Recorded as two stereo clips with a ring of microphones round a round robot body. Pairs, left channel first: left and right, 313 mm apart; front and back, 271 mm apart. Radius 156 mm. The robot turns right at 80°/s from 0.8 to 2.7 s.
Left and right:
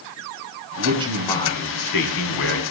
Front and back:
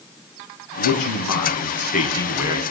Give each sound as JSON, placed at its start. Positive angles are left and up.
{"t": 0.8, "sound": "a man speaking", "azimuth_deg": -30, "distance_m": 4.5}